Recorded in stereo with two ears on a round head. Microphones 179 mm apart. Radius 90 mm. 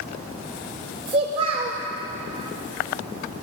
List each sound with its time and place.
1.1 s a child speaking: 30° right (ahead or behind), 0.5 m